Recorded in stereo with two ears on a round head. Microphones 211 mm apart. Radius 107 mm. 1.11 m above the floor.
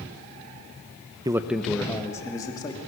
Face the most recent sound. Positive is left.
turn(degrees=15)  # may be behind; listen again after turning